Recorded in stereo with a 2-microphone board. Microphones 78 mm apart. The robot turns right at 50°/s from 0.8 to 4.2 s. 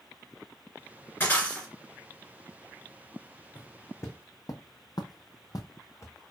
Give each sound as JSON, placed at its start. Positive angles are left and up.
{"t": 1.2, "sound": "breaking glass", "side_deg": 30, "distance_m": 2.5}
{"t": 3.5, "sound": "footsteps", "side_deg": 60, "distance_m": 1.0}